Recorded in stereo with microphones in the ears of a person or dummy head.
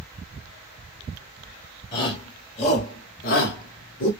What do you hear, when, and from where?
1.9 s a shout: 25° left (ahead or behind), 1.2 m; by 4.1 s 55° left (ahead or behind), 0.8 m